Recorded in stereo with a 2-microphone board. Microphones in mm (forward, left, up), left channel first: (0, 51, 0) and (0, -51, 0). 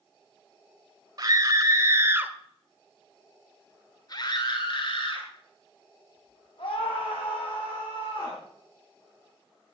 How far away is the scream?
About 2 m.